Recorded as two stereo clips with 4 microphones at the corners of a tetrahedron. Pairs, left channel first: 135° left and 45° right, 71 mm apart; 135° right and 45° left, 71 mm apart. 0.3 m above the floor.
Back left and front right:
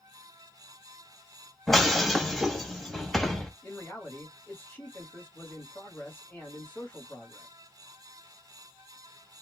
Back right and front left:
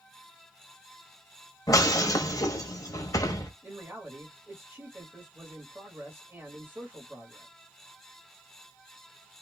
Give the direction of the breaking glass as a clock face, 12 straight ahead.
5 o'clock.